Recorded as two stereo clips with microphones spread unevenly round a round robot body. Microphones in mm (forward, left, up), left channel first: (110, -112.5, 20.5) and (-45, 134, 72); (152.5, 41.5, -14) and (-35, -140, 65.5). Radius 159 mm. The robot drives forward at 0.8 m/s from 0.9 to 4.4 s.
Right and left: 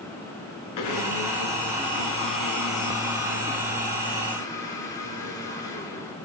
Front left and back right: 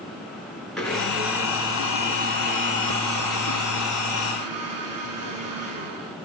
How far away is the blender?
About 1.9 m.